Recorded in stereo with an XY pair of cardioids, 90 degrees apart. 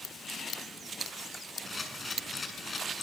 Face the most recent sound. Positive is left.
turn(degrees=30)